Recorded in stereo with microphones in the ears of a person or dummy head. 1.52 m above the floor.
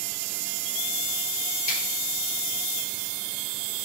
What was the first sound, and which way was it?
A finger snap, 45° left (ahead or behind).